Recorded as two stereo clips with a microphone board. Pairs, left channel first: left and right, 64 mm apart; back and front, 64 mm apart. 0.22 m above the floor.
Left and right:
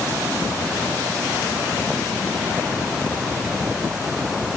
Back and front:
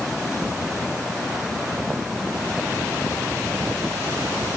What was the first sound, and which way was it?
Only background noise.